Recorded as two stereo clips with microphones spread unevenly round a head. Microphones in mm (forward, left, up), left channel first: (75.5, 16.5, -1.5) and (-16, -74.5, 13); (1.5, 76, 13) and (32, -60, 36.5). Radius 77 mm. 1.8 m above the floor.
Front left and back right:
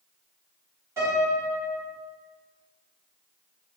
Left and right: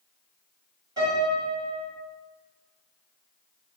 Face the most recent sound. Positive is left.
turn(degrees=-95)